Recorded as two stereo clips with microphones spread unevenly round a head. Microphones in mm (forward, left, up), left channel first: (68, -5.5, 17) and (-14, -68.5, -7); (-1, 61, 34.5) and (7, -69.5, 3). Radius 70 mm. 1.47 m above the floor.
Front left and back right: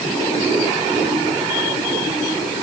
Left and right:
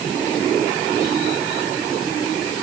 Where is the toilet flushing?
No toilet flushing in this recording.